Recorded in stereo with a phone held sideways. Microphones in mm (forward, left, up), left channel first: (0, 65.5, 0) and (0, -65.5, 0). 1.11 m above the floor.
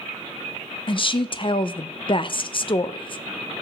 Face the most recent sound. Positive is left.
turn(degrees=40)  # may be behind; listen again after turning